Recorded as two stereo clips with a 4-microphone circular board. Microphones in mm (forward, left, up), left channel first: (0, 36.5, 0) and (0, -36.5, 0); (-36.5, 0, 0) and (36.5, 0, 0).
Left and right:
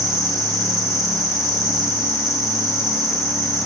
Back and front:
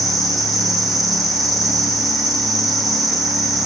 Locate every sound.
0.0 s an insect: 90° left, 2.5 m